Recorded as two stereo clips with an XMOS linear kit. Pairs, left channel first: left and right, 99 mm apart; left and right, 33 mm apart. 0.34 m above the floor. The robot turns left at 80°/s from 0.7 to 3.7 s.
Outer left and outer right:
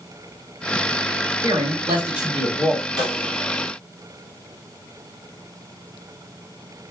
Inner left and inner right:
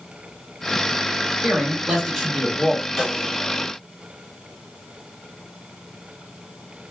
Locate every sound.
1.4 s a man speaking: 110° right, 1.5 m; by 2.9 s 140° left, 1.5 m
3.0 s a snare drum: 5° left (ahead or behind), 1.4 m; by 3.3 s 30° left (ahead or behind), 1.4 m